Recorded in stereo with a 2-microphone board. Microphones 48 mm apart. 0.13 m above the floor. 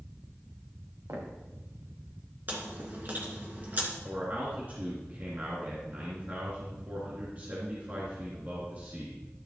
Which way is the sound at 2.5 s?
40° right (ahead or behind).